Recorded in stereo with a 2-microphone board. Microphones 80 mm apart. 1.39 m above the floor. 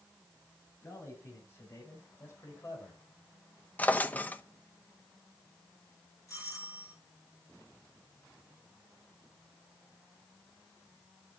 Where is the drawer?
20° left (ahead or behind), 0.7 m.